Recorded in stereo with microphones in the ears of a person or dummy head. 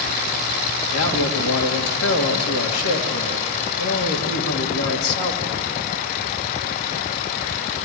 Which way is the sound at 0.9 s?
80° left.